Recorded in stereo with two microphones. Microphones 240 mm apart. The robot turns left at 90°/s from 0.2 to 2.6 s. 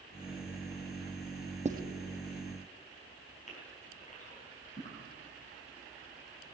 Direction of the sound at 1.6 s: 30° right (ahead or behind).